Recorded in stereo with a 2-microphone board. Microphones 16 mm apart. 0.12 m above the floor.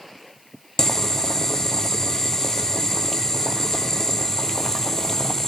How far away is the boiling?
About 1.1 m.